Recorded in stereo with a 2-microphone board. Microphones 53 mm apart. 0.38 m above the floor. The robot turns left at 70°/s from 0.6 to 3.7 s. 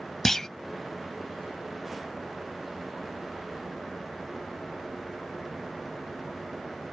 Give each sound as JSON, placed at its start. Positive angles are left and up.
{"t": 0.2, "sound": "a clunk", "side_deg": 10}